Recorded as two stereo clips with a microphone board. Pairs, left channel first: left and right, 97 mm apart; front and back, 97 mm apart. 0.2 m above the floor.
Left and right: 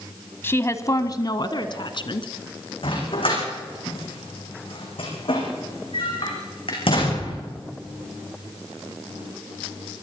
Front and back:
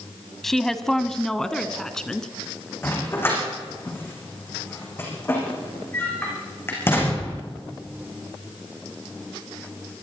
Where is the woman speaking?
85° left, 1.0 m.